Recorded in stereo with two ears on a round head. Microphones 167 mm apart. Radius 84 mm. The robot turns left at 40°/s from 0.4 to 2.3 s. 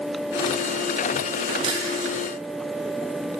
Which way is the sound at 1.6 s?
30° right (ahead or behind).